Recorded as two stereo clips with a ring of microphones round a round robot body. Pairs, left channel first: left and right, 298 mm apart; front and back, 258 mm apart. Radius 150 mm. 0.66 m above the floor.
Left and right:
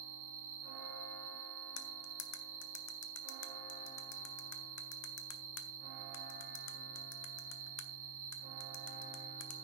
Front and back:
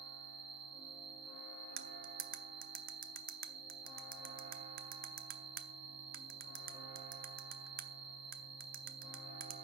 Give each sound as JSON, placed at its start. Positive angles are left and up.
{"t": 0.0, "sound": "an insect", "azimuth_deg": -95, "distance_m": 1.9}
{"t": 1.8, "sound": "cutlery clinking", "azimuth_deg": 125, "distance_m": 0.9}